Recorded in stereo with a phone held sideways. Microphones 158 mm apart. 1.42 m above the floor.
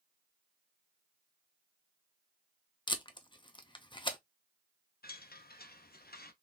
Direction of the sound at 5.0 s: 75° left (ahead or behind).